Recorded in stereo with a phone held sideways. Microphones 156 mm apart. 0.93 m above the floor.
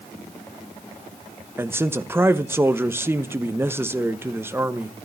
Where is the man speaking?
15° right (ahead or behind), 1.1 m.